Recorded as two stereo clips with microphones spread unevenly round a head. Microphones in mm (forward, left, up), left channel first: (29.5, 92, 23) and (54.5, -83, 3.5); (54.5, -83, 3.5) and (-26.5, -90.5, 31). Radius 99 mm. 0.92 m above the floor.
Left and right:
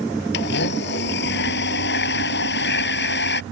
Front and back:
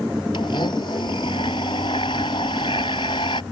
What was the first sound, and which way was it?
A blender, 70° left.